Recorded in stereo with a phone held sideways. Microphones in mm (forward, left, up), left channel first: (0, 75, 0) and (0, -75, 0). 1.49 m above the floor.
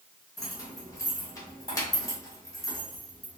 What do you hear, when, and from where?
0.4 s keys jangling: 20° left (ahead or behind), 1.0 m